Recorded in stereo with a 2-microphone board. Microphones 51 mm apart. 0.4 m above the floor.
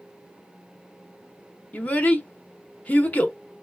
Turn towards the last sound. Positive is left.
turn(degrees=30)  # may be behind; listen again after turning